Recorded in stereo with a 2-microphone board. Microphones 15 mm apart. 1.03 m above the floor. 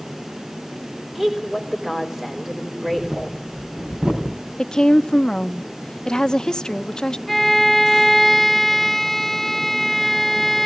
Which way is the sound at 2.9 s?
85° right.